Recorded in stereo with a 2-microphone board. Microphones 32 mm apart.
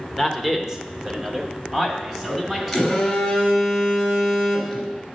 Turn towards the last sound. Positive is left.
turn(degrees=0)  # may be behind; listen again after turning